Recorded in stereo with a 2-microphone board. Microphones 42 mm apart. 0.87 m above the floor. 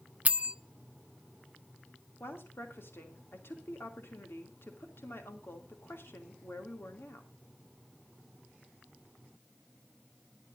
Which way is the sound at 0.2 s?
35° right (ahead or behind).